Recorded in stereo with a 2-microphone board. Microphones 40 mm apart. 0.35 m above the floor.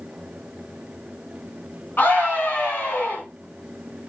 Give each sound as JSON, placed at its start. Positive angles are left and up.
{"t": 2.0, "sound": "a scream", "side_deg": 55, "distance_m": 4.5}